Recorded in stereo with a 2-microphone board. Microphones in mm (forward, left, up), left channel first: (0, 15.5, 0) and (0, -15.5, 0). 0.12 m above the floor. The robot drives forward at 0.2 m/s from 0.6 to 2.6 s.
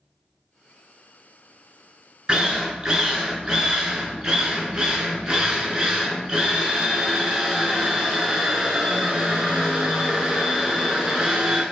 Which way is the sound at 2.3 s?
30° right (ahead or behind).